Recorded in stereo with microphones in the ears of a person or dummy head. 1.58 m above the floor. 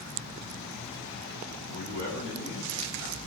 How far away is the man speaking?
About 5 m.